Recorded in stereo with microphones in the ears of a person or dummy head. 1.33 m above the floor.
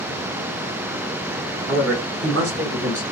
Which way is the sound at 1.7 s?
85° right.